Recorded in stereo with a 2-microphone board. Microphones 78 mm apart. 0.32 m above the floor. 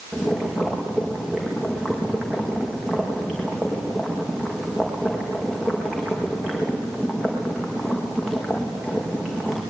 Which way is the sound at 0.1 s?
5° right (ahead or behind).